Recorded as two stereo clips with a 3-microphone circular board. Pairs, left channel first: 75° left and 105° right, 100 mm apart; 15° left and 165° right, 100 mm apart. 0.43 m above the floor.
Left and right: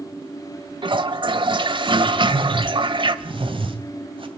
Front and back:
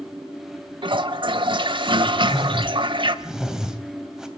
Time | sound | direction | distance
0.8 | a toilet flushing | 135° right | 1.0 m
2.1 | a whoosh | 80° right | 2.5 m